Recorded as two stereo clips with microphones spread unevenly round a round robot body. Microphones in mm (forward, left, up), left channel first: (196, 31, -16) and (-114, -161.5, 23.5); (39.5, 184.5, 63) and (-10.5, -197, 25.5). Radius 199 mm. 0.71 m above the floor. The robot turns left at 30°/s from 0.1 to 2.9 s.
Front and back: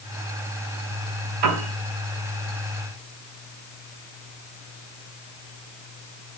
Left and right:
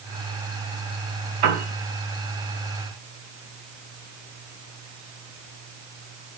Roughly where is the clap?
I don't hear a clap.